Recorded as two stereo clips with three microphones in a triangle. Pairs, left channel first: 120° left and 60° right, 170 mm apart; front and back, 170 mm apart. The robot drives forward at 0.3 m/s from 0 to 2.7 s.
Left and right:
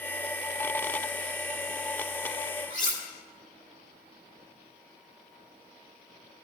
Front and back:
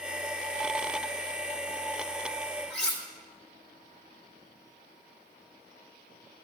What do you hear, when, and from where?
2.7 s cutlery clinking: 85° left, 1.8 m